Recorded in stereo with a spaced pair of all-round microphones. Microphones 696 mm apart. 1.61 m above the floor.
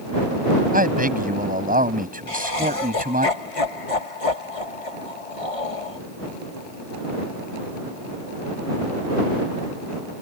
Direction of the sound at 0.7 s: 10° right (ahead or behind).